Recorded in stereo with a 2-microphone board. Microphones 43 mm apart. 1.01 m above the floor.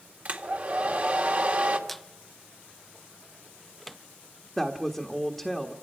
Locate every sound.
0.2 s a hair dryer: 40° right (ahead or behind), 1.9 m
1.9 s a squeak: centre (ahead or behind), 0.6 m
4.6 s a woman speaking: centre (ahead or behind), 1.4 m